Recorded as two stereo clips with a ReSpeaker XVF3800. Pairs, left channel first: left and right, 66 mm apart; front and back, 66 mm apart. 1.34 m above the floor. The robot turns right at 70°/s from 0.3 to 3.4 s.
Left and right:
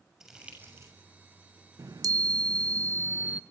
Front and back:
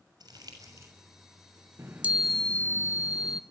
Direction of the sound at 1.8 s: 125° right.